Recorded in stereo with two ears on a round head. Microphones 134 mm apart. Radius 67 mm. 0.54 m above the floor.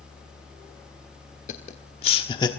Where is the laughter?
50° left (ahead or behind), 1.5 m; by 2.5 s 25° left (ahead or behind), 1.1 m.